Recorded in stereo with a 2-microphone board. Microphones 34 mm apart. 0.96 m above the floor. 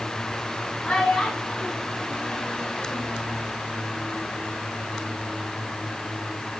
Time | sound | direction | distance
0.8 | a child speaking | 25° left (ahead or behind) | 7 m